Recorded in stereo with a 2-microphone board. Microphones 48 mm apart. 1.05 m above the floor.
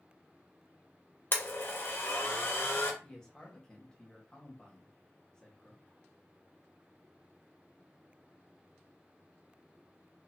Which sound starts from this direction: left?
A blender, at 1.3 s.